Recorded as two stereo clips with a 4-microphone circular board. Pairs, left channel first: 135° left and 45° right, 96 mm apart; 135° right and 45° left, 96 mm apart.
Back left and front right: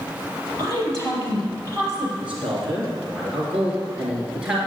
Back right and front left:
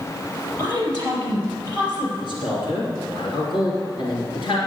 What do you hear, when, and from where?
0.6 s a woman speaking: 100° right, 5.5 m
2.2 s a man speaking: 120° right, 2.5 m